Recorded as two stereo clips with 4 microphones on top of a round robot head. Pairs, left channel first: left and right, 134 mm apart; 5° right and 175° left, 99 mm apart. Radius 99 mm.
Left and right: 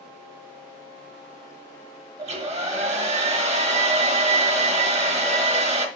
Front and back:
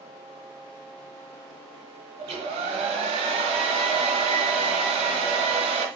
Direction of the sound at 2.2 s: 130° right.